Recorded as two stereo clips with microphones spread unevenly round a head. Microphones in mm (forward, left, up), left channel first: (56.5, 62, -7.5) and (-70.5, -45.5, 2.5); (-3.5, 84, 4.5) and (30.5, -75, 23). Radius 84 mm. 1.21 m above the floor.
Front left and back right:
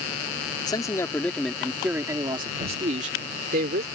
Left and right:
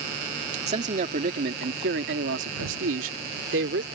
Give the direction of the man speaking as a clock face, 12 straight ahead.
1 o'clock.